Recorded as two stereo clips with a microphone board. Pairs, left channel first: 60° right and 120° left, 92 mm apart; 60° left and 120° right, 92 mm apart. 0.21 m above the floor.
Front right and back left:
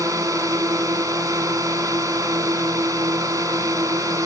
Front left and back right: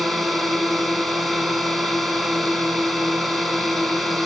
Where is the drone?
150° left.